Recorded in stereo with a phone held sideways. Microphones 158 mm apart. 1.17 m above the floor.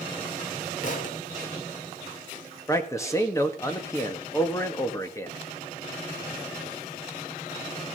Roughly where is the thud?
Left.